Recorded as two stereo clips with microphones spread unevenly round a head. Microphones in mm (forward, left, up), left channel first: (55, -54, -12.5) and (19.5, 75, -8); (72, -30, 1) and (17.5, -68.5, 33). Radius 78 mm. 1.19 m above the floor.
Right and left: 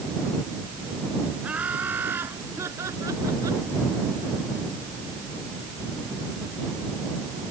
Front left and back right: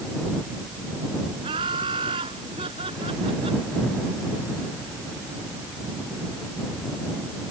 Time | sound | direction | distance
1.4 | laughter | 170° right | ?